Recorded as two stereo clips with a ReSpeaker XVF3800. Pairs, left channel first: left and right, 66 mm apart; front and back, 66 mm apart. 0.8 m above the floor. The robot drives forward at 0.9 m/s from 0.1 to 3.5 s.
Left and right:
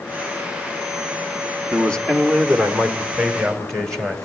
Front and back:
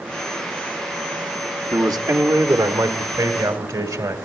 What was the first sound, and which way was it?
A man speaking, 165° left.